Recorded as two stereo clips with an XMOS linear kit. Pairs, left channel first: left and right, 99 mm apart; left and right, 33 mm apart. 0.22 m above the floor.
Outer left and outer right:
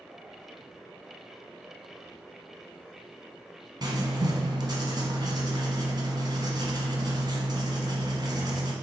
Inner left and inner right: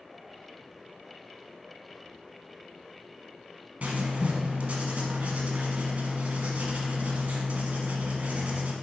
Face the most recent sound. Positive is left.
turn(degrees=-45)  # may be behind; listen again after turning